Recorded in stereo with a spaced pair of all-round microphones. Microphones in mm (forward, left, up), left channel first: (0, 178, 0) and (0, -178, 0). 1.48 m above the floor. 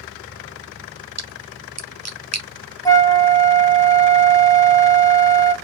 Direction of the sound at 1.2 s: 45° right (ahead or behind).